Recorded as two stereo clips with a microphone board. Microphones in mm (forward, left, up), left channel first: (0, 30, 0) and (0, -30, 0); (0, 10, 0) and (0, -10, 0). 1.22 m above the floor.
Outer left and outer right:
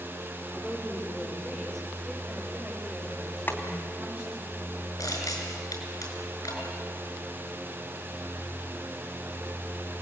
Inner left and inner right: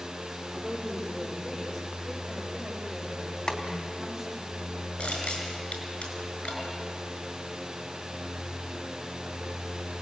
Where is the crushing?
75° left (ahead or behind), 6 m.